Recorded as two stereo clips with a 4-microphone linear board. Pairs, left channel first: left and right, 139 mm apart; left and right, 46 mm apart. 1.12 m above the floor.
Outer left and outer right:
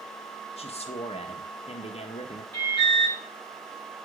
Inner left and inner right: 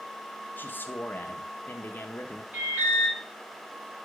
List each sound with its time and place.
0.6 s a man speaking: 50° left (ahead or behind), 1.0 m
2.5 s an alarm: 40° right (ahead or behind), 3 m